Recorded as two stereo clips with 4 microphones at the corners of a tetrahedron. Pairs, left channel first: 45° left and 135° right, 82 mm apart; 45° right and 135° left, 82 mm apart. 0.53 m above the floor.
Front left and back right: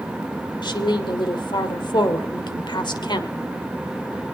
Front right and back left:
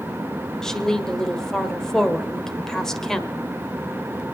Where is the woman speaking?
40° left, 1.6 m.